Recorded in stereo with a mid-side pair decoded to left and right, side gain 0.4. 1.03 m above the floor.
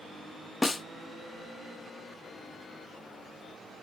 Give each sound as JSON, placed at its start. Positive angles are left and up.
{"t": 0.6, "sound": "a snare drum", "azimuth_deg": 25, "distance_m": 0.5}